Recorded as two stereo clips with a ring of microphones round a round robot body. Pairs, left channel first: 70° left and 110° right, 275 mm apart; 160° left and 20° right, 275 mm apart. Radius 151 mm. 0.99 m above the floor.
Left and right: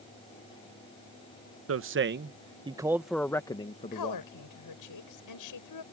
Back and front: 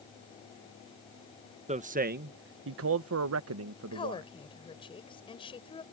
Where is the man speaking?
85° right; by 4.2 s 10° left.